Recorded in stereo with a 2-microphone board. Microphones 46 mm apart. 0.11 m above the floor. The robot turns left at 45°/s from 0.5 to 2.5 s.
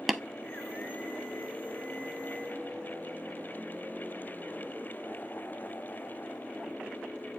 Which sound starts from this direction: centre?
Tapping, at 0.1 s.